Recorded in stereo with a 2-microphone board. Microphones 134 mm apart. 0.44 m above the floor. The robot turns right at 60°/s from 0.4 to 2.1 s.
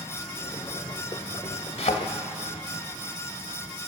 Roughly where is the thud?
Left.